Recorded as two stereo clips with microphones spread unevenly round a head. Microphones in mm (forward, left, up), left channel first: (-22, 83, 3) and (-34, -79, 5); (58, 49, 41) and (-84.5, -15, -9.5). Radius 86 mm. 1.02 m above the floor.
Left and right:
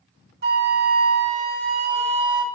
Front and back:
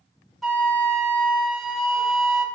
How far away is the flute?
About 0.9 m.